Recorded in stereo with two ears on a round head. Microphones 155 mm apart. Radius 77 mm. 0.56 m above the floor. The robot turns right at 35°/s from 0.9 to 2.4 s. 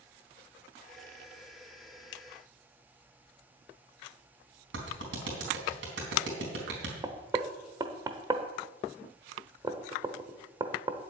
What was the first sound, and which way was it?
A clap, 75° right (ahead or behind).